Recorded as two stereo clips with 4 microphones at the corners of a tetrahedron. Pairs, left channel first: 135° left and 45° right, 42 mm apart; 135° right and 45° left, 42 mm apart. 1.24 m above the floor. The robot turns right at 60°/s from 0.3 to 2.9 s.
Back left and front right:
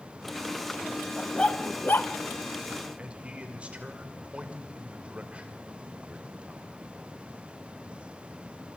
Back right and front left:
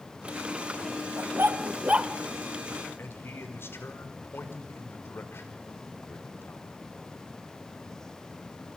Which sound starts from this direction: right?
A man speaking, at 3.0 s.